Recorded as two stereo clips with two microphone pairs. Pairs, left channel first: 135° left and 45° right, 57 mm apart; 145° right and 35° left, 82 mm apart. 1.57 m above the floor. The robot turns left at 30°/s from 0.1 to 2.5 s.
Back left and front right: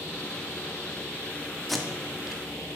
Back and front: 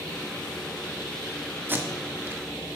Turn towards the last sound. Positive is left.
turn(degrees=25)